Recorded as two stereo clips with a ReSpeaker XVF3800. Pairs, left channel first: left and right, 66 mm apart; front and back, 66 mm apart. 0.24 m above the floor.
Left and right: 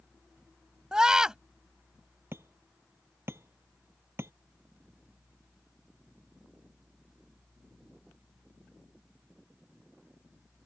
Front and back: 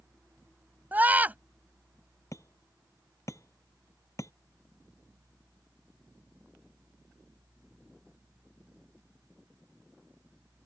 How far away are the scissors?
I don't hear scissors.